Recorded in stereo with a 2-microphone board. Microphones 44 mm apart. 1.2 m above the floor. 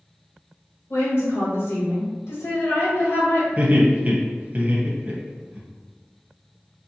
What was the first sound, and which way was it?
A woman speaking, 65° left (ahead or behind).